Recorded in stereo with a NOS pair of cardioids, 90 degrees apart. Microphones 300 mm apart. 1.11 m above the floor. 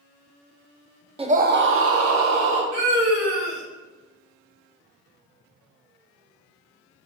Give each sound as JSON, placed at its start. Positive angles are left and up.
{"t": 1.2, "sound": "a scream", "azimuth_deg": -20, "distance_m": 0.6}
{"t": 2.7, "sound": "a scream", "azimuth_deg": -65, "distance_m": 1.5}